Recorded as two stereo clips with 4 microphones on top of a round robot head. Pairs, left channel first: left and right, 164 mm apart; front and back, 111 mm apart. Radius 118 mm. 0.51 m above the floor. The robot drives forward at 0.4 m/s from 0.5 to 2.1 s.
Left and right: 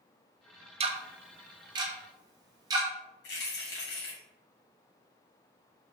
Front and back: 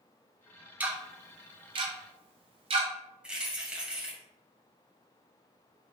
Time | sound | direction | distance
0.8 | ticking | 110° right | 0.5 m
3.2 | keys jangling | 100° left | 1.9 m